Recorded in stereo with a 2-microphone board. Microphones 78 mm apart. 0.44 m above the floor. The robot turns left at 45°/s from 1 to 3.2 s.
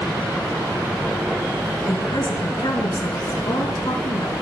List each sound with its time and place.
1.9 s a woman speaking: 130° left, 4.5 m; by 4.3 s 70° left, 4.5 m